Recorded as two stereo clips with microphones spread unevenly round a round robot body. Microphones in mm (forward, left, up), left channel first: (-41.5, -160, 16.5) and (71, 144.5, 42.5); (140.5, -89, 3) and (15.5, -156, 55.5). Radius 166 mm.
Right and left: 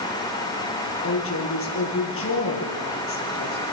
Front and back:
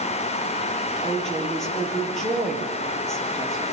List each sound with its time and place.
1.0 s a woman speaking: 60° right, 9.5 m